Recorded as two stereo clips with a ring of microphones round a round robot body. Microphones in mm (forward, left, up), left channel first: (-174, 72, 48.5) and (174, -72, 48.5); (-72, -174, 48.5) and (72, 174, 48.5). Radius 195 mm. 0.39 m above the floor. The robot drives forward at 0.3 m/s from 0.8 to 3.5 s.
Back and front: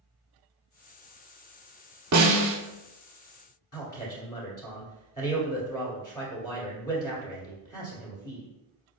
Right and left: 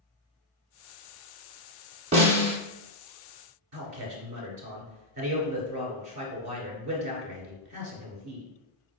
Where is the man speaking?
100° left, 1.5 m.